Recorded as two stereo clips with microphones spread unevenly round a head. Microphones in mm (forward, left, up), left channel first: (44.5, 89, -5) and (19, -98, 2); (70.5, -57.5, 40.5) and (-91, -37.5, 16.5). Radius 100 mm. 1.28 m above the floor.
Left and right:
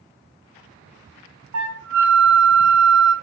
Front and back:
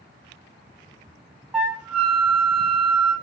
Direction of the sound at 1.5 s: 100° right.